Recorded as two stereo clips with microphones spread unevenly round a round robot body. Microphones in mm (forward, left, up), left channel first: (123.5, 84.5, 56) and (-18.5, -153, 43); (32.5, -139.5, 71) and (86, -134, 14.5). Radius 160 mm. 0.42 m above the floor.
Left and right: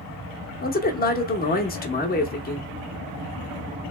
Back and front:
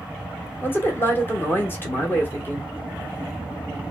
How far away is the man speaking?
About 0.9 m.